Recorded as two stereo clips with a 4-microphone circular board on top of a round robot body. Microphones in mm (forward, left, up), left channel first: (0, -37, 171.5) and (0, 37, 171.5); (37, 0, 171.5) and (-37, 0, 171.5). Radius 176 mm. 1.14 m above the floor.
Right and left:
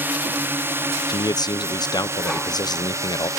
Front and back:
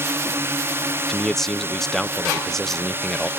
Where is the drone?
140° left; by 3.4 s 130° left.